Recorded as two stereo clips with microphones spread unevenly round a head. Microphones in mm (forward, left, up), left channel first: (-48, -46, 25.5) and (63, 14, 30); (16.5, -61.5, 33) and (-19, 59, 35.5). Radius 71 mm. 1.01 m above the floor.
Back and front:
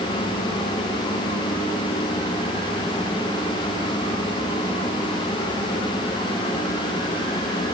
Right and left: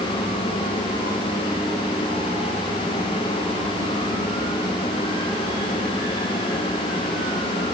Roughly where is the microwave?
I don't hear a microwave.